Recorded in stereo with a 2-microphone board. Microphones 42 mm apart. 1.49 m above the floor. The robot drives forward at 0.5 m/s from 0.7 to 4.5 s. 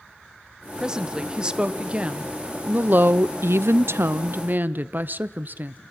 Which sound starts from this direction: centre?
A woman speaking, at 0.8 s.